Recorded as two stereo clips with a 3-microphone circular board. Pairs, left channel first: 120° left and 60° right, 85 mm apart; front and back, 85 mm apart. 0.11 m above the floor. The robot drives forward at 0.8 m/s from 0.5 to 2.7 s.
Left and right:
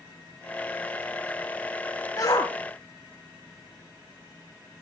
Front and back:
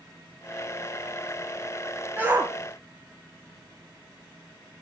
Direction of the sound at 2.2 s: 120° left.